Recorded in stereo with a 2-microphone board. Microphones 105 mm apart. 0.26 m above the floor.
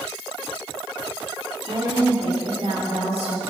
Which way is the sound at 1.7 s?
65° right (ahead or behind).